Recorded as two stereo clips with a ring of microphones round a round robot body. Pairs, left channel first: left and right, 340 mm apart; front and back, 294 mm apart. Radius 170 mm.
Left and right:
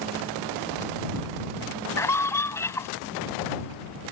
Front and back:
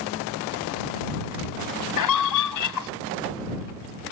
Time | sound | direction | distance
2.0 | a scream | 10° left | ?